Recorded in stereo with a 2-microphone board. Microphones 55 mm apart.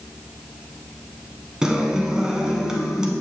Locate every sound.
1.6 s a guitar: 15° right (ahead or behind), 1.0 m